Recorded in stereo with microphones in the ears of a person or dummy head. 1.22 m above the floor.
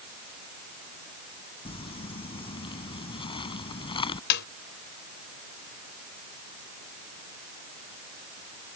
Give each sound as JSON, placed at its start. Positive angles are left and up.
{"t": 1.6, "sound": "crumpling", "side_deg": 30}
{"t": 4.3, "sound": "a snare drum", "side_deg": 60}